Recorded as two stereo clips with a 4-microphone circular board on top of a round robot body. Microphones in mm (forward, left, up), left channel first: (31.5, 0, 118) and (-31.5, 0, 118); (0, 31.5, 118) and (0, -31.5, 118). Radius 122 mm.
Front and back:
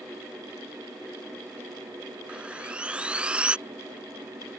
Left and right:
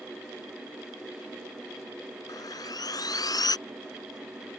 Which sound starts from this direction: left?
Sawing, at 2.3 s.